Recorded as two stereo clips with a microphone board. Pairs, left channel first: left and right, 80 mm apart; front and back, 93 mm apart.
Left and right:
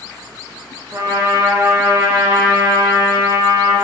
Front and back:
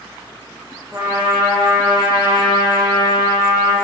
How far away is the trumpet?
About 2 m.